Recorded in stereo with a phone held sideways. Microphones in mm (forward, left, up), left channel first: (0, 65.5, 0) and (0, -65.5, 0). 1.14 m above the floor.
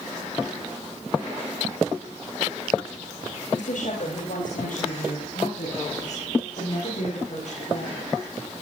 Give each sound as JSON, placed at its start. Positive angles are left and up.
{"t": 3.5, "sound": "a woman speaking", "side_deg": 75, "distance_m": 5.0}